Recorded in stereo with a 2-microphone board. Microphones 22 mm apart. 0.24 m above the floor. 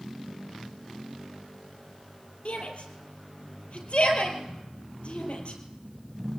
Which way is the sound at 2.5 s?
60° left (ahead or behind).